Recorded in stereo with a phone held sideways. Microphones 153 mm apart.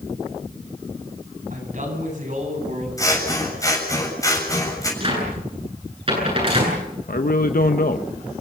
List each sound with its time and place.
1.5 s a man speaking: 60° right (ahead or behind), 9.5 m; by 2.9 s 55° right (ahead or behind), 9.5 m
3.0 s scissors: 20° left (ahead or behind), 7 m
5.0 s a cupboard door: 35° right (ahead or behind), 9 m
7.1 s a man speaking: 70° left (ahead or behind), 1.0 m